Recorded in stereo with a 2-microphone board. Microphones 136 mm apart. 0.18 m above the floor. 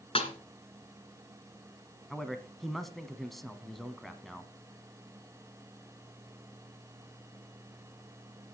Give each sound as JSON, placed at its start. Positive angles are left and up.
{"t": 0.1, "sound": "a snare drum", "side_deg": 45, "distance_m": 1.6}
{"t": 2.1, "sound": "a man speaking", "side_deg": 0, "distance_m": 1.2}